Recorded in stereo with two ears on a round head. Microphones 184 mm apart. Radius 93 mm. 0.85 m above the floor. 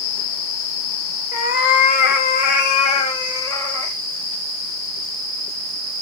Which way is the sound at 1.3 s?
40° left (ahead or behind).